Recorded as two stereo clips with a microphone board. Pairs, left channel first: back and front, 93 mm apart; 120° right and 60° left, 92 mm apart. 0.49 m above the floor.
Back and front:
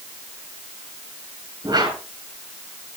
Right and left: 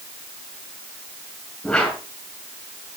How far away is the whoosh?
About 6 m.